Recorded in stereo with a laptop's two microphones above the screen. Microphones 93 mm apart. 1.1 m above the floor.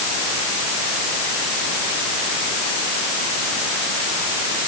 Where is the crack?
I don't hear a crack.